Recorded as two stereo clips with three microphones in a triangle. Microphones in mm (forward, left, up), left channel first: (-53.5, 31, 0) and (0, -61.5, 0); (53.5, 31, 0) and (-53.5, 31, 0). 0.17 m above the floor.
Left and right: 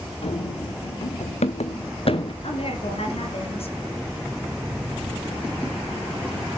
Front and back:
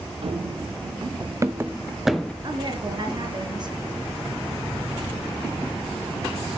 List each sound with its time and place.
0.2 s running footsteps: 150° left, 1.6 m; by 2.3 s 85° left, 1.0 m
2.4 s a woman speaking: 140° left, 2.5 m